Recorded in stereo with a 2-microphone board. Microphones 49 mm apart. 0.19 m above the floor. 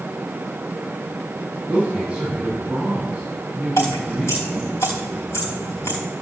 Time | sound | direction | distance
1.7 | a man speaking | 15° right (ahead or behind) | 7 m
3.8 | dripping | 75° left (ahead or behind) | 4 m